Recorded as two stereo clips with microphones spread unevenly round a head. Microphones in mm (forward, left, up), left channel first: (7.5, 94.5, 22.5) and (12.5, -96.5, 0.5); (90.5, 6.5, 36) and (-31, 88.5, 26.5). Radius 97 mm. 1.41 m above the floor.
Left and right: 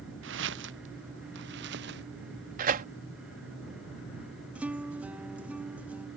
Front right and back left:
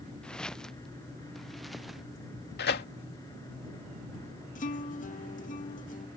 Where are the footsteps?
120° right; by 2.0 s 125° right.